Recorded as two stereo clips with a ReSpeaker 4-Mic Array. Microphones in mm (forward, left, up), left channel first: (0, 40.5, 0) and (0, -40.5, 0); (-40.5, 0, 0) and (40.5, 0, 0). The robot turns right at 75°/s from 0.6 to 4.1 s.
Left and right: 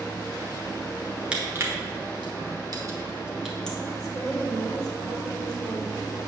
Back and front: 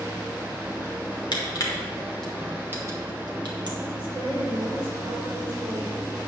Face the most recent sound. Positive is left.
turn(degrees=5)